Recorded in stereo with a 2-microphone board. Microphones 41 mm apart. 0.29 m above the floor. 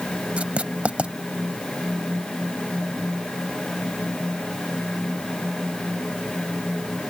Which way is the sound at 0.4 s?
35° right (ahead or behind).